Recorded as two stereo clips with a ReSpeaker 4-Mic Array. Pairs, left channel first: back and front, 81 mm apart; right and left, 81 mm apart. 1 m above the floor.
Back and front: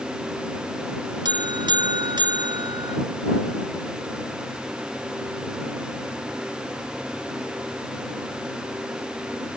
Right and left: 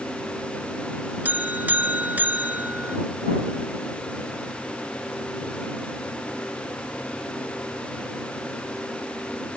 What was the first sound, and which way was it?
A buzzer, 20° left.